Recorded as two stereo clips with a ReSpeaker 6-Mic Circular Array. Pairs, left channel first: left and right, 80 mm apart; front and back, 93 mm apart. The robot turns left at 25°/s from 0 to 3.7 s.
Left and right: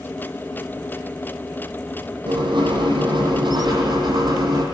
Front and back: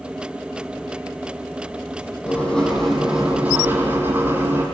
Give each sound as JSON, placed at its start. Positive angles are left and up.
{"t": 2.3, "sound": "writing", "azimuth_deg": -75, "distance_m": 8.5}